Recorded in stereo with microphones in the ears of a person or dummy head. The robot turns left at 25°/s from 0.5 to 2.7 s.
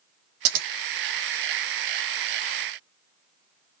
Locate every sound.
0.5 s scissors: 60° right (ahead or behind), 0.7 m